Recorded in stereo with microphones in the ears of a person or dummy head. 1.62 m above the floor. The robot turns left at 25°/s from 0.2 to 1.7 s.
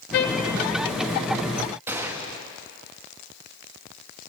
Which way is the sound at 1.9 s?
15° right (ahead or behind).